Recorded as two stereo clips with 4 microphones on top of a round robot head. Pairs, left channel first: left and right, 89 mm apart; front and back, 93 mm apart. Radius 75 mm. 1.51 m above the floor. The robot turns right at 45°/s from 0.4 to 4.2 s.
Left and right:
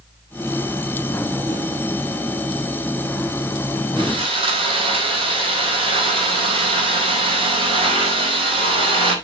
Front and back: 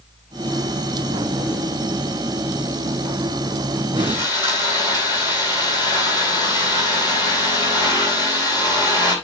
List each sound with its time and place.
4.0 s sawing: 115° right, 4.5 m; by 9.2 s 105° right, 4.5 m